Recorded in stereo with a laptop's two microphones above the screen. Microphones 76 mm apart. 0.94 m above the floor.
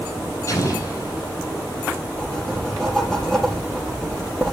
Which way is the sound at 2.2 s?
10° left (ahead or behind).